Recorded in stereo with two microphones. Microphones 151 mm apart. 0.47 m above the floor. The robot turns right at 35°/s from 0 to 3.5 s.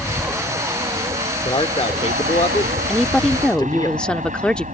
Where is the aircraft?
Centre (ahead or behind); by 4.8 s 55° right (ahead or behind).